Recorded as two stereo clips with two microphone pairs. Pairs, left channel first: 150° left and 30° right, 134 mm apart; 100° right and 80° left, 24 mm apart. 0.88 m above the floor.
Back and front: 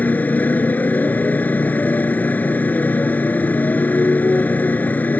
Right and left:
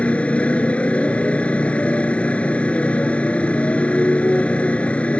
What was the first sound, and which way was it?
A motorcycle, 130° right.